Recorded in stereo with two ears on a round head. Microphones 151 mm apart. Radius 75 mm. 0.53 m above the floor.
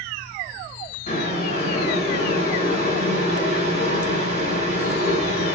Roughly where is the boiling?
Left.